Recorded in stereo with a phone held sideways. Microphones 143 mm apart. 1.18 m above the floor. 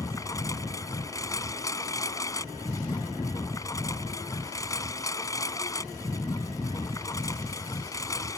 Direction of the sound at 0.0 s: 25° left (ahead or behind).